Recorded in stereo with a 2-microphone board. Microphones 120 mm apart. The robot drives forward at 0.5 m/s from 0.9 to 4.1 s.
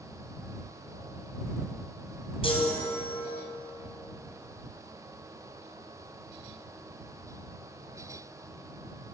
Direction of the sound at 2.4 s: 50° left (ahead or behind).